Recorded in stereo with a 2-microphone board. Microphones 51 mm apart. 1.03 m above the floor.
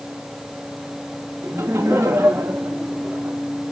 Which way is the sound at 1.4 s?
65° right (ahead or behind).